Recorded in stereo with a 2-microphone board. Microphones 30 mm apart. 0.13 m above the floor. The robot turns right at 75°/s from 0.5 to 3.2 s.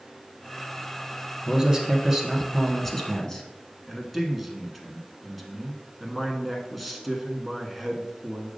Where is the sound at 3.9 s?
Centre (ahead or behind), 1.1 m.